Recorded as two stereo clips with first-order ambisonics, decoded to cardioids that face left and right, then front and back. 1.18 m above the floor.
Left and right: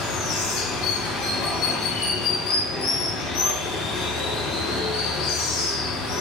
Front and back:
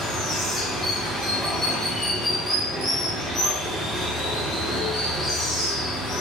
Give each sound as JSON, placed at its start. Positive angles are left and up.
{"t": 0.0, "sound": "running water", "azimuth_deg": 90, "distance_m": 1.8}